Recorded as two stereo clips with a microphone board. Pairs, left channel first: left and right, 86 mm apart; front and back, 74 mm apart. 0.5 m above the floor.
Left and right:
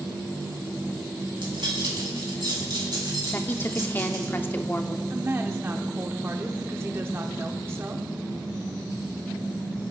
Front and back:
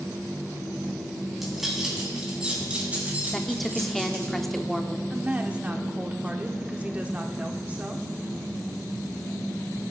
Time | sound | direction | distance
1.3 | keys jangling | 90° right | 3.5 m
3.3 | a woman speaking | 85° left | 0.7 m
5.1 | a woman speaking | 125° right | 1.0 m